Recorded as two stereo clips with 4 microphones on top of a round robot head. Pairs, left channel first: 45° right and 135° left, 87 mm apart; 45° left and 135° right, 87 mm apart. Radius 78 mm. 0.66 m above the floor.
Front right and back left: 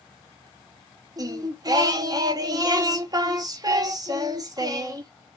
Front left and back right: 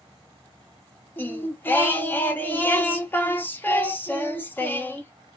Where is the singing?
105° left, 1.0 m.